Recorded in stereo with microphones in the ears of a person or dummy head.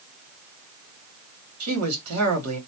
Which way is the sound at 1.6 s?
85° right.